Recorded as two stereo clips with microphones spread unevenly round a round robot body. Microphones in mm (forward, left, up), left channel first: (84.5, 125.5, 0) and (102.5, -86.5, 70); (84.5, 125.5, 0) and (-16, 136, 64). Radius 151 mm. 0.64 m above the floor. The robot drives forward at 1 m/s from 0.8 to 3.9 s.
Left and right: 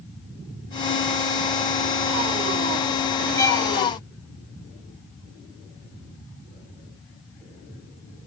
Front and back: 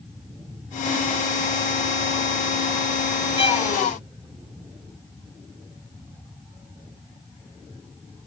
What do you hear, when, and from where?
3.4 s a violin: 20° left